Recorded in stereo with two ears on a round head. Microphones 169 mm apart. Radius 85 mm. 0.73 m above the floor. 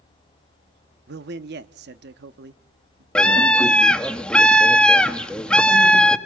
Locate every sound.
1.1 s a man speaking: 55° right (ahead or behind), 0.9 m
3.1 s a scream: 5° left (ahead or behind), 1.4 m